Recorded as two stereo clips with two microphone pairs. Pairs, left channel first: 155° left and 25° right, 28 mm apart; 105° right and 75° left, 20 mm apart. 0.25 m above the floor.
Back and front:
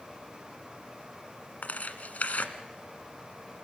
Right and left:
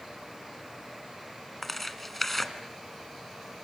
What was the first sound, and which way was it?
Tearing paper, 170° left.